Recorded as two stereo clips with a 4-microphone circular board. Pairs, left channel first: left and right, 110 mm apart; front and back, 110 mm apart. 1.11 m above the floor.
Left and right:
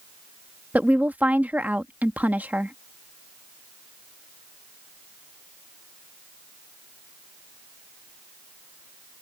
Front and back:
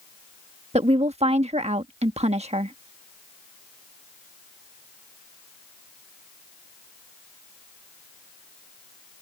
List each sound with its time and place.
0.7 s a woman speaking: 165° right